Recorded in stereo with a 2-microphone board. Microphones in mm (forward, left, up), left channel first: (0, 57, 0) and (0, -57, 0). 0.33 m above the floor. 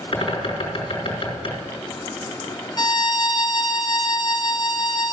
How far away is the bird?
About 3.5 m.